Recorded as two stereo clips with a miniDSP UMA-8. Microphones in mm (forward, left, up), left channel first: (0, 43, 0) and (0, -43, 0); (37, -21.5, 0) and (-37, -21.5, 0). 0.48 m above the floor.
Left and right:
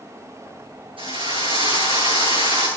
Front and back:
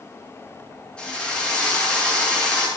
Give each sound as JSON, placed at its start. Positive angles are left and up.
{"t": 1.0, "sound": "a drill", "azimuth_deg": -80, "distance_m": 7.5}